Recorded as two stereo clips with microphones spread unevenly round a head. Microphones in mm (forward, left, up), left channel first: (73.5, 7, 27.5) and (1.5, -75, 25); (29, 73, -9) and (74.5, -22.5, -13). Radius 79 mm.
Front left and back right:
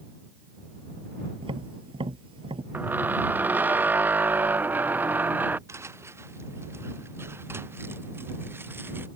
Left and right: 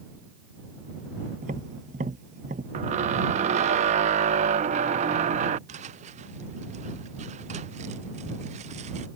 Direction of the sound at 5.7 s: 65° right.